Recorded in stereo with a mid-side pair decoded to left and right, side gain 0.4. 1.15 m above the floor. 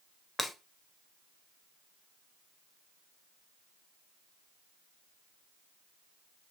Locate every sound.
0.4 s breaking glass: 20° left, 1.0 m